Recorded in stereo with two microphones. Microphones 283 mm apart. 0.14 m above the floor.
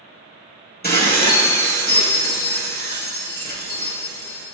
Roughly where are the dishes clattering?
Left.